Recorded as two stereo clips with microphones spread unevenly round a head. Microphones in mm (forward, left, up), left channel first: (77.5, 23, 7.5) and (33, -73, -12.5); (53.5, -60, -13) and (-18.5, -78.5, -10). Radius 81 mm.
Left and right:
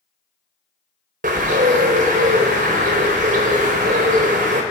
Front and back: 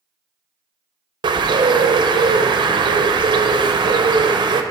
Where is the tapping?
No tapping in this recording.